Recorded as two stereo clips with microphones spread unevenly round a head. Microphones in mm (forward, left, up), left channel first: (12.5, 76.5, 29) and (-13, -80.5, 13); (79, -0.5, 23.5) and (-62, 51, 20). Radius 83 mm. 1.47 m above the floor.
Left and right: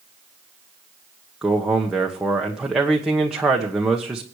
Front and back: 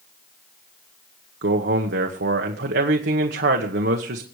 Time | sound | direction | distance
1.4 | a man speaking | 175° left | 1.2 m